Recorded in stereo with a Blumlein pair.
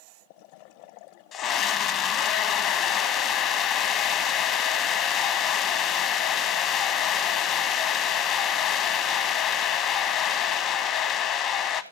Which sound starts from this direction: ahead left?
A scream, at 1.3 s.